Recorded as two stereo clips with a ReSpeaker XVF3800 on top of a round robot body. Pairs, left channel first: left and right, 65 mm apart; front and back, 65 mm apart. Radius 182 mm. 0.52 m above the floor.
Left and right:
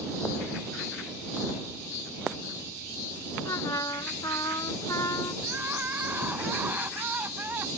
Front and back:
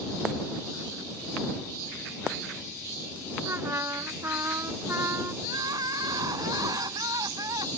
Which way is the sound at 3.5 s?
130° left.